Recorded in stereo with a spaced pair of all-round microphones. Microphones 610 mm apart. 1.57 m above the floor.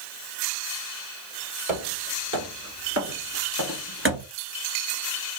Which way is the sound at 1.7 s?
30° right (ahead or behind).